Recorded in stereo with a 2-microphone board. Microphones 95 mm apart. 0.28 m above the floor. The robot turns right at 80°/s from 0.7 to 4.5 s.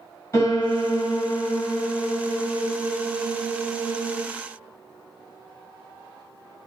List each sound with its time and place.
0.3 s a piano: 55° left, 2.0 m; by 4.2 s 20° right, 2.0 m